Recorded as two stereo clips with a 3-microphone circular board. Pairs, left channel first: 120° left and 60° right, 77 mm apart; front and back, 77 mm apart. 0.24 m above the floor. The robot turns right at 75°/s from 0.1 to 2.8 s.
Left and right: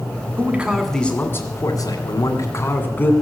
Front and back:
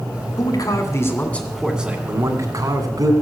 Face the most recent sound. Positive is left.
turn(degrees=180)